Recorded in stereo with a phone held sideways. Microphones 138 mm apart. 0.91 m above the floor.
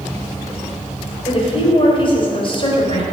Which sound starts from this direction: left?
A woman speaking, at 1.2 s.